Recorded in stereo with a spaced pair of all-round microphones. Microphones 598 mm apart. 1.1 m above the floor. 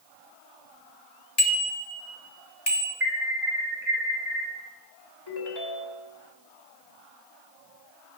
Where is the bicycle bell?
90° left, 2 m; by 2.9 s 60° left (ahead or behind), 3.5 m.